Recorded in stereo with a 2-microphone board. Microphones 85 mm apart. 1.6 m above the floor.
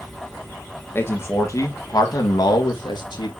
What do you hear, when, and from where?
0.9 s a man speaking: 30° left (ahead or behind), 1.6 m; by 3.3 s 70° left (ahead or behind), 2 m